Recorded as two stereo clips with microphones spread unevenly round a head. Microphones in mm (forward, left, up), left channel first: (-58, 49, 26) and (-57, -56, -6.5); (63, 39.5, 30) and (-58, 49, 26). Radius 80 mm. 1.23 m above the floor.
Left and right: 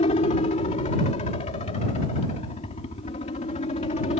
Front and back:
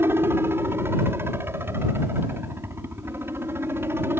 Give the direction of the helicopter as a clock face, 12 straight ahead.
8 o'clock.